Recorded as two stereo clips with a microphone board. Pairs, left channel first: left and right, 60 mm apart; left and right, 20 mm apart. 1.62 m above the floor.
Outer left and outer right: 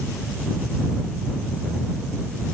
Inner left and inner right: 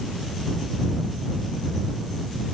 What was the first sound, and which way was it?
Only background noise.